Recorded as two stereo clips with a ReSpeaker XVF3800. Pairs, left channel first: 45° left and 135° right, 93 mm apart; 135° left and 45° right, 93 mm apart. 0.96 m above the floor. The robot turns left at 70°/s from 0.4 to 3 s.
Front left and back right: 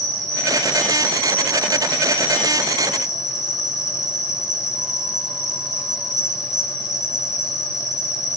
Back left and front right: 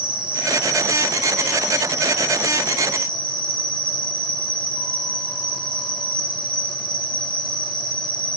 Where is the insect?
80° right, 4 m; by 8.4 s 100° left, 4 m.